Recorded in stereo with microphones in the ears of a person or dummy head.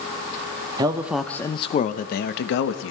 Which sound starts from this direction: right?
A man speaking, at 0.8 s.